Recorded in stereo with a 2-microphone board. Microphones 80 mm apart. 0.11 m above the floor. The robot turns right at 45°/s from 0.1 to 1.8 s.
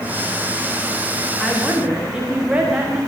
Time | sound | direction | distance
1.4 | a woman speaking | centre (ahead or behind) | 9.5 m